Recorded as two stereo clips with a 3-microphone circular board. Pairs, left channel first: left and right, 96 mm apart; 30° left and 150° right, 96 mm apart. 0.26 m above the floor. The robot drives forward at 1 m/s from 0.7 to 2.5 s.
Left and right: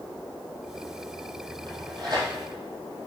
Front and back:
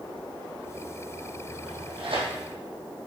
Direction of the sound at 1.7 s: 125° right.